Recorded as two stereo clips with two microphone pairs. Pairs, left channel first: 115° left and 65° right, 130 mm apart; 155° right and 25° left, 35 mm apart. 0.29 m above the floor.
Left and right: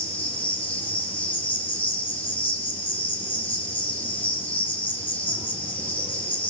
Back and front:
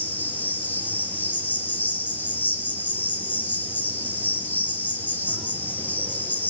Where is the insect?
170° right, 6 m.